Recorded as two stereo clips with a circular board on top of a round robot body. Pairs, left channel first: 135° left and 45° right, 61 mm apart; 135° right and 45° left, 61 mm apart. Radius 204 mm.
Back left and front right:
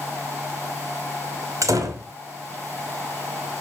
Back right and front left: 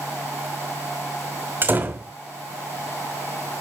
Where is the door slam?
15° right, 2.5 m.